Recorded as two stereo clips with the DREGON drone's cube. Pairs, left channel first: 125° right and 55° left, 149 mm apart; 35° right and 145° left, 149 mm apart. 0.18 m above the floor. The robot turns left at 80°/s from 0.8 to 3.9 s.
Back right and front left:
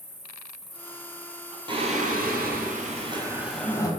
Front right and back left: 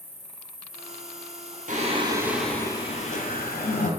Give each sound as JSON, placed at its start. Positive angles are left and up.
{"t": 0.0, "sound": "an insect", "azimuth_deg": 15, "distance_m": 1.3}
{"t": 1.7, "sound": "singing", "azimuth_deg": 115, "distance_m": 0.5}